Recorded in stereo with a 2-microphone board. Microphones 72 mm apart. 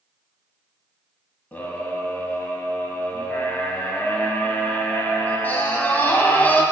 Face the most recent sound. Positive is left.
turn(degrees=25)  # may be behind; listen again after turning